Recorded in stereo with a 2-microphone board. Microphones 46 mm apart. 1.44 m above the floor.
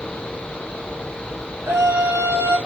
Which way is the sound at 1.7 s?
65° right (ahead or behind).